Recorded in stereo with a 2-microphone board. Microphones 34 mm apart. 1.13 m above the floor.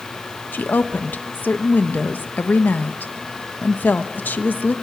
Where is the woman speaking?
75° left (ahead or behind), 0.9 m.